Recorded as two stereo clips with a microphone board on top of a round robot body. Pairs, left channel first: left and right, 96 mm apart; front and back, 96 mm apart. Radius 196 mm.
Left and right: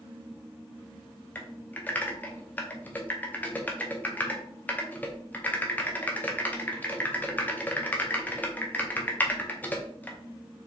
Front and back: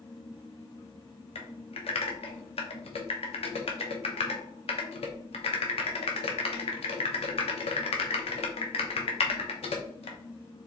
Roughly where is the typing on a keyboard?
Ahead.